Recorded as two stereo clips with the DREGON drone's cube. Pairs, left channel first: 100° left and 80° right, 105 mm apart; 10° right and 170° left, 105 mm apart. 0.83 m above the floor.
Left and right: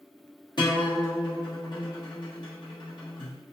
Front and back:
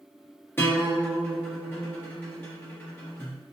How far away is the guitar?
About 0.8 m.